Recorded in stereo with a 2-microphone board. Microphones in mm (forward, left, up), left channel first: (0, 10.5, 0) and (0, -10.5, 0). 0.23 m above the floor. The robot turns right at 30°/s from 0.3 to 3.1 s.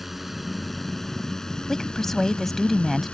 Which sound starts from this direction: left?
A woman speaking, at 1.7 s.